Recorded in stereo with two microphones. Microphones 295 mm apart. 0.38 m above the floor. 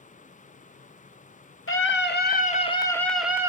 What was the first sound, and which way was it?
A scream, 45° left (ahead or behind).